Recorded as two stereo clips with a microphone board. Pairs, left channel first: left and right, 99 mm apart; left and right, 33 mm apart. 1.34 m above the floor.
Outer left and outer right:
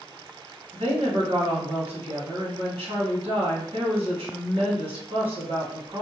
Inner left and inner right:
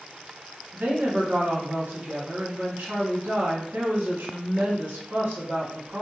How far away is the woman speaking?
About 1.3 m.